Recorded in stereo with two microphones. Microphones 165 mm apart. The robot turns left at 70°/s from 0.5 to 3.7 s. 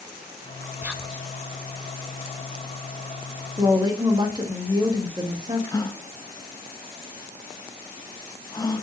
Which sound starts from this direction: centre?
A woman speaking, at 3.6 s.